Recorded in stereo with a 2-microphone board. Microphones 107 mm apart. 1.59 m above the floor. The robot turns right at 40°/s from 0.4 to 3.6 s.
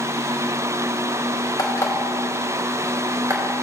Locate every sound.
1.6 s an alarm clock: 35° left (ahead or behind), 2.5 m; by 3.5 s 40° right (ahead or behind), 2.5 m